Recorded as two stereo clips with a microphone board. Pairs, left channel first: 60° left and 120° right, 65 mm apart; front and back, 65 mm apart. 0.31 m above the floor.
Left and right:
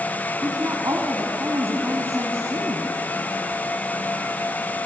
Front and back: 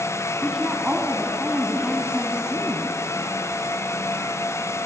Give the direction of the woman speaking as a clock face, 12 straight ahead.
3 o'clock.